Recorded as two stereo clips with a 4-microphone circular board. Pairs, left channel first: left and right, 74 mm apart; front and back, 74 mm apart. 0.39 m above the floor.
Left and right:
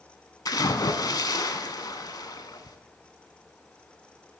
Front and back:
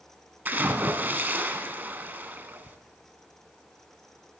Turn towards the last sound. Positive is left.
turn(degrees=115)